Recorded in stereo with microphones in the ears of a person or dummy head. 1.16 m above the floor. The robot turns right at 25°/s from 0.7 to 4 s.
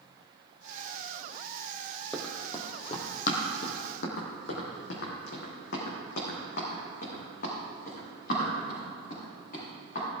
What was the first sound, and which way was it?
Running footsteps, centre (ahead or behind).